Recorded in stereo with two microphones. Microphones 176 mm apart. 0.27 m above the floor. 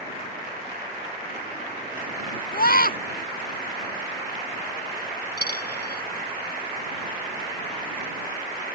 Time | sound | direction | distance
2.5 | a scream | 60° left (ahead or behind) | ?
5.4 | a dropped coin | 80° left | ?